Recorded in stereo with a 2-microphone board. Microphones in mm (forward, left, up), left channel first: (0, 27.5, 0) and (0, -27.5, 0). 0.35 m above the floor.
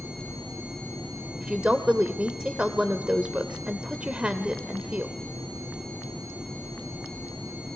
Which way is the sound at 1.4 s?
20° right (ahead or behind).